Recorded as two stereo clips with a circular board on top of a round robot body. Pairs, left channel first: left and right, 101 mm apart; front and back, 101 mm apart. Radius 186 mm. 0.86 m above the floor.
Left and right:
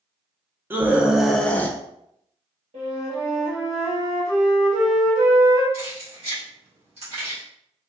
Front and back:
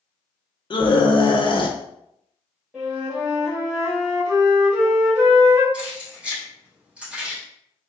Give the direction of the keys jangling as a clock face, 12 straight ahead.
3 o'clock.